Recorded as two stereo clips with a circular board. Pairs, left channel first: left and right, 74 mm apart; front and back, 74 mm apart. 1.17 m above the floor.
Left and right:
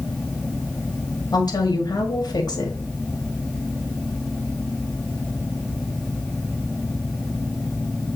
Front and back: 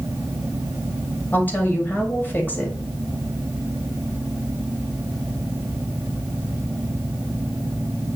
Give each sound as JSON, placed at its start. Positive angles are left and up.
{"t": 1.3, "sound": "a woman speaking", "azimuth_deg": 65, "distance_m": 2.0}